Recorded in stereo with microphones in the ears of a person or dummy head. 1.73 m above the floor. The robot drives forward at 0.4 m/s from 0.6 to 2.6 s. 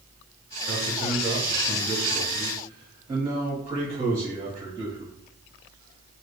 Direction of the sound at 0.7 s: 40° right (ahead or behind).